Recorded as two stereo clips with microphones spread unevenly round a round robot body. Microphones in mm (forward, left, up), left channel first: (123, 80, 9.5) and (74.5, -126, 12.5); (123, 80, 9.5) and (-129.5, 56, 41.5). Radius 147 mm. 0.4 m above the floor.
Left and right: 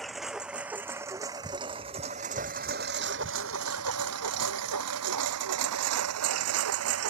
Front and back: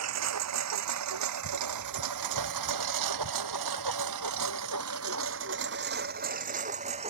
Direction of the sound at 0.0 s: 165° left.